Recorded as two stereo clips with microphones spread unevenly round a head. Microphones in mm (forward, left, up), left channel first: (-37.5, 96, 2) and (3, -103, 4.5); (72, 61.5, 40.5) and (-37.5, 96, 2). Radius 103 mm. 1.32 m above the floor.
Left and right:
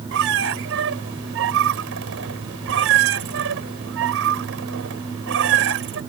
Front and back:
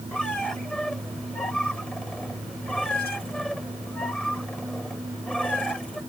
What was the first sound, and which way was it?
A squeak, 100° right.